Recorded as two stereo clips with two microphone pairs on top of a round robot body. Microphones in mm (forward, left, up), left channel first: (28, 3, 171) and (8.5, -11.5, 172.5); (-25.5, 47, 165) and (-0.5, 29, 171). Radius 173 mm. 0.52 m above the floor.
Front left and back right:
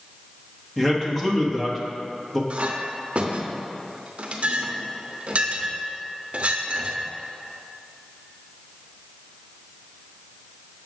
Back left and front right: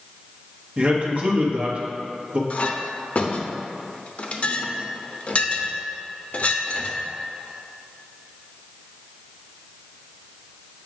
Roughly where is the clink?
Behind.